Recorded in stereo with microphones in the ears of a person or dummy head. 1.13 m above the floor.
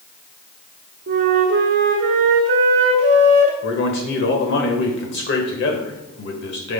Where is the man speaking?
55° left (ahead or behind), 1.4 m.